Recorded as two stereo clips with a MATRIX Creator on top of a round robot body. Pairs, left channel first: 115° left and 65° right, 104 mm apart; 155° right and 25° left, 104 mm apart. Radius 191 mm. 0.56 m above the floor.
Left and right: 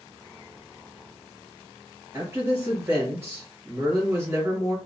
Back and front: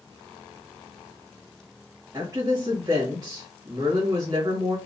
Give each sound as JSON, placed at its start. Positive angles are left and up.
{"t": 2.1, "sound": "a woman speaking", "azimuth_deg": -15, "distance_m": 1.3}